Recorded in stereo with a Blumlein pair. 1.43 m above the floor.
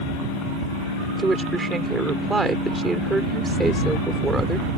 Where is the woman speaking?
10° right.